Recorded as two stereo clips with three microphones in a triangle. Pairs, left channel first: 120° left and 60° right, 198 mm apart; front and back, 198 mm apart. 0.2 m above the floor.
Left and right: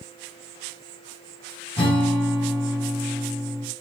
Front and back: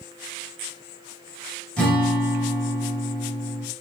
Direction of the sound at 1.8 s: 80° left.